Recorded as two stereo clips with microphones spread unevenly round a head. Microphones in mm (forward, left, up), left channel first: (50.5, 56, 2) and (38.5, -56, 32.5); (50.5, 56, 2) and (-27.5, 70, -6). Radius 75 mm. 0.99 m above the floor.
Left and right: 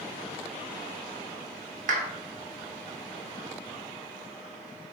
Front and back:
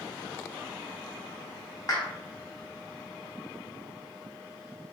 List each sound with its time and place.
1.9 s a clap: 80° right, 0.7 m